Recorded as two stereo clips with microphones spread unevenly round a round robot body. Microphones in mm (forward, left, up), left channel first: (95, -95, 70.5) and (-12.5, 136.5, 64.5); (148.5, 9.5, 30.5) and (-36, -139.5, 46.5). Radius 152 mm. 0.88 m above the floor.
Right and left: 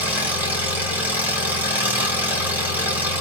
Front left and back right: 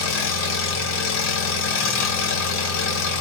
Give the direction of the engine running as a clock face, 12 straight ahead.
11 o'clock.